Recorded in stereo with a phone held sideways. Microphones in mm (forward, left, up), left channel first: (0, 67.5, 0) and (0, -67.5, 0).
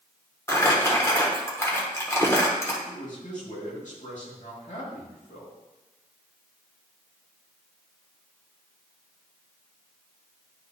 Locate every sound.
0.5 s crumpling: 20° left (ahead or behind), 1.3 m
2.9 s a man speaking: 65° left (ahead or behind), 2.5 m